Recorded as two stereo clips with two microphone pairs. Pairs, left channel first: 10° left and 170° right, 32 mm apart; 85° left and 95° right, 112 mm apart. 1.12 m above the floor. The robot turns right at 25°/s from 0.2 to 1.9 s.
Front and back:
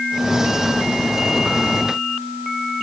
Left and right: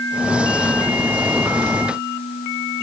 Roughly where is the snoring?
No snoring in this recording.